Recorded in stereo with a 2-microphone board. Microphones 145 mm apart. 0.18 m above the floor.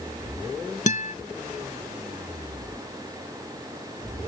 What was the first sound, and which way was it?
A guitar, 60° left (ahead or behind).